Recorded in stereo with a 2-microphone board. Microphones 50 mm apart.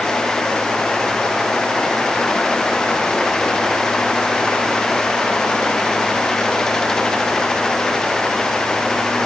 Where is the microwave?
No microwave in this recording.